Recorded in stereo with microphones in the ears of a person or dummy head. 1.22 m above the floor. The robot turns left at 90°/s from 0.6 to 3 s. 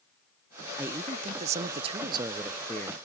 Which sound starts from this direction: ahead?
A man speaking, at 0.8 s.